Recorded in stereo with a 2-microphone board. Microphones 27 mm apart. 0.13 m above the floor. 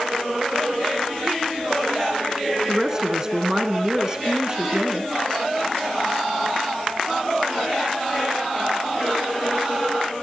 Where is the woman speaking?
20° right (ahead or behind), 1.7 m.